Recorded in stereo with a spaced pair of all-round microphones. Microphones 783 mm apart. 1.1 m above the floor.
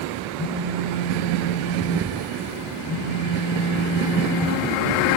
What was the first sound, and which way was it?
A phone buzzing, 35° left (ahead or behind).